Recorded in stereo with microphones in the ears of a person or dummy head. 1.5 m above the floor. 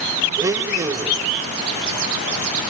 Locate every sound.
0.4 s a blender: 15° right (ahead or behind), 0.6 m